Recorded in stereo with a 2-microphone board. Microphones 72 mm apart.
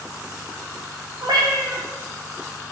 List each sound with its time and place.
1.2 s a cat meowing: 75° right (ahead or behind), 1.0 m